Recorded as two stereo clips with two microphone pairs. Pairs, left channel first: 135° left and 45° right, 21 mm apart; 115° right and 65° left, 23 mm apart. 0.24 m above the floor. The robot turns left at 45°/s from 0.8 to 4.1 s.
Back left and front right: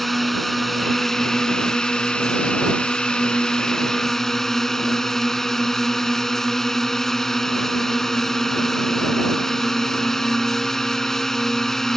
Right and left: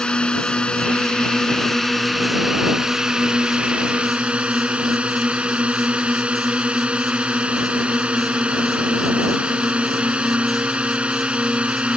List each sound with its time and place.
0.0 s a drone: 145° right; by 12.0 s 70° left